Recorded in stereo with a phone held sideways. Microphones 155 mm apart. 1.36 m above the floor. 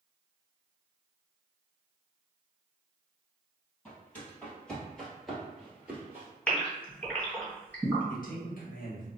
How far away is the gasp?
About 1.7 m.